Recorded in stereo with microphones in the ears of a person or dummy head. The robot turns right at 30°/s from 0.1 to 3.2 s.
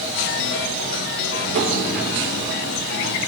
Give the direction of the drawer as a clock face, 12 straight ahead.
5 o'clock.